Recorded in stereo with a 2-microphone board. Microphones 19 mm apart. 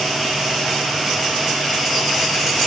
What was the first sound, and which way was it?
Only background noise.